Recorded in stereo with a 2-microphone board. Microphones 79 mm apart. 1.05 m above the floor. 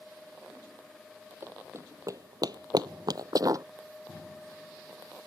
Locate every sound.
1.4 s running footsteps: 25° right (ahead or behind); by 3.6 s 45° right (ahead or behind)